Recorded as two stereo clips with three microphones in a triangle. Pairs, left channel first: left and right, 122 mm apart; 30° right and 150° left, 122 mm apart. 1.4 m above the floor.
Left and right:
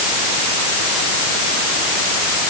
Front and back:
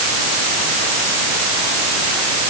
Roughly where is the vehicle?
I don't hear a vehicle.